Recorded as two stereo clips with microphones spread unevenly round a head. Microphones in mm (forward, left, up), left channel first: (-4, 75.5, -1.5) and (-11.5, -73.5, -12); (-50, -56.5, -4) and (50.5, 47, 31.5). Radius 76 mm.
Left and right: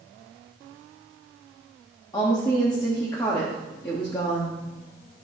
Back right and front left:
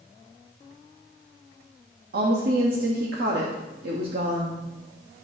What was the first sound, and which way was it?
A woman speaking, 20° left.